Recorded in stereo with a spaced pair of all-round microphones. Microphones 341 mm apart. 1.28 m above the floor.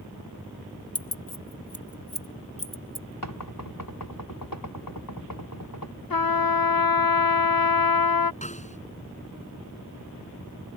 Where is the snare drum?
20° left (ahead or behind).